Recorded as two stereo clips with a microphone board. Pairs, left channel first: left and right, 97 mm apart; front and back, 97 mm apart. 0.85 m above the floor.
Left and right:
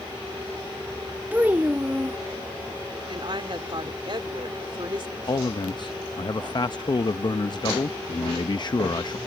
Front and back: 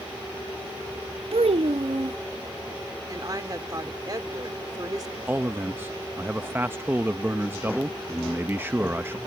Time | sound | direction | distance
1.3 | a child speaking | 165° right | ?
3.1 | a woman speaking | 130° right | ?
5.3 | a man speaking | 115° left | ?